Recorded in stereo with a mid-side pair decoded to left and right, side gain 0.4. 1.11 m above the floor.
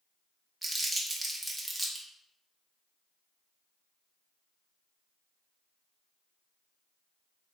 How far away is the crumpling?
About 1.3 m.